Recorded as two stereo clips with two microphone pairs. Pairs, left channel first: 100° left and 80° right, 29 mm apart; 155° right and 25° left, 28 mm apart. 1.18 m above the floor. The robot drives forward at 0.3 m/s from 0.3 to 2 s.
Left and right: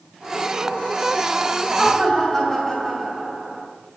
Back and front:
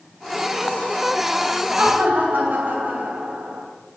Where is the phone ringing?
I don't hear a phone ringing.